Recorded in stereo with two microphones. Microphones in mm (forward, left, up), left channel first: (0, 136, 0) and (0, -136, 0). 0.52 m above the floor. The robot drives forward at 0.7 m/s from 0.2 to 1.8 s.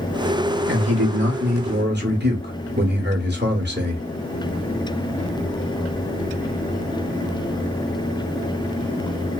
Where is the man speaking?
45° right (ahead or behind), 1.2 m; by 4.0 s 40° right (ahead or behind), 1.4 m.